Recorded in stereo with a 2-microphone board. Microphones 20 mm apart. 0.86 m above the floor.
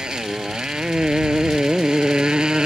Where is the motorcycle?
40° right (ahead or behind).